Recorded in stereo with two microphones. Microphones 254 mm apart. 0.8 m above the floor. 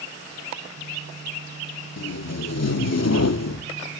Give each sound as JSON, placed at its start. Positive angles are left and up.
{"t": 2.0, "sound": "tape being pulled", "side_deg": 70, "distance_m": 0.6}